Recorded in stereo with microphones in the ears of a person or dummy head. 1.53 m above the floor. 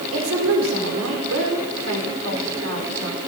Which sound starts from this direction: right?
A woman speaking, at 0.1 s.